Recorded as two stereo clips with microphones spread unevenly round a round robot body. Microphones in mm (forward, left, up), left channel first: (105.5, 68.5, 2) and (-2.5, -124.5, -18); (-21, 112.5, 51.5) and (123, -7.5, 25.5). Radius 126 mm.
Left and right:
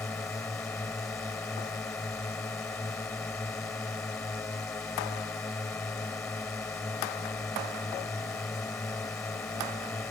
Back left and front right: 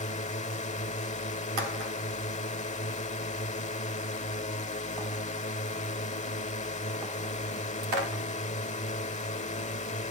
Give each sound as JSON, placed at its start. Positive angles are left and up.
{"t": 0.0, "sound": "a drone", "azimuth_deg": 140}